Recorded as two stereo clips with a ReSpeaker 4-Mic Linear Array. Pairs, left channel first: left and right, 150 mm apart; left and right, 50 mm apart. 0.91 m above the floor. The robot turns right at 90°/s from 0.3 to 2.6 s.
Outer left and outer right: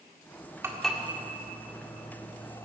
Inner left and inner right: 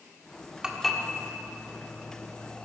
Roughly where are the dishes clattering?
Centre.